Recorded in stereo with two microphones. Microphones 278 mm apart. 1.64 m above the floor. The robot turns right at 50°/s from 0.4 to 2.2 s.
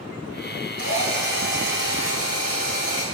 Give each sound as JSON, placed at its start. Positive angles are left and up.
{"t": 0.8, "sound": "a drill", "azimuth_deg": 65, "distance_m": 5.5}